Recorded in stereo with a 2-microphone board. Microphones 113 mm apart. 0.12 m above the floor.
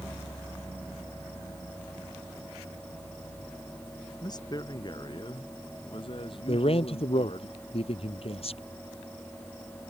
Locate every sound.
4.2 s a man speaking: 35° left (ahead or behind); by 7.5 s 55° left (ahead or behind)
6.5 s a man speaking: 60° left (ahead or behind)